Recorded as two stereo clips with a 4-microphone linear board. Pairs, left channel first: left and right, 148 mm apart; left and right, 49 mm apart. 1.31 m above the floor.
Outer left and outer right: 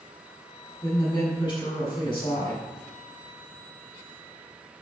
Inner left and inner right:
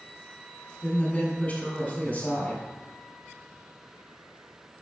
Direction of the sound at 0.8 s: 30° left (ahead or behind).